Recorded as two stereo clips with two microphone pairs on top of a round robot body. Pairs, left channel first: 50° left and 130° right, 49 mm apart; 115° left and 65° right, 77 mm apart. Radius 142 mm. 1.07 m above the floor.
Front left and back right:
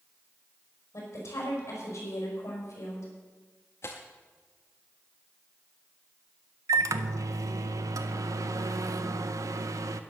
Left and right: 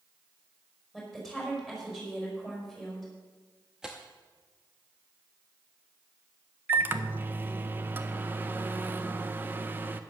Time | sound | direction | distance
0.9 | a woman speaking | 20° left | 5.5 m
3.8 | tearing paper | 15° left | 0.5 m
6.7 | a microwave | 130° right | 0.5 m